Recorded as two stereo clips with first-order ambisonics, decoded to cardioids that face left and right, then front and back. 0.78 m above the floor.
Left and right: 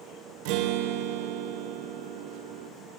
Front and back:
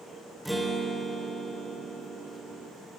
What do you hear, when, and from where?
0.5 s a guitar: 90° right, 3 m